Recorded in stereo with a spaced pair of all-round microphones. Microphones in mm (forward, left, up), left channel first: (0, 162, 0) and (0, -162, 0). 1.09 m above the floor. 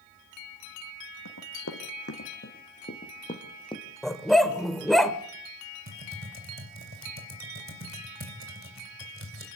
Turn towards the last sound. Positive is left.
turn(degrees=-40)  # may be behind; listen again after turning